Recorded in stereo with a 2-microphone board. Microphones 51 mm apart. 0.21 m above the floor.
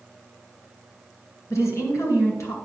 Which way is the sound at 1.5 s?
65° left (ahead or behind).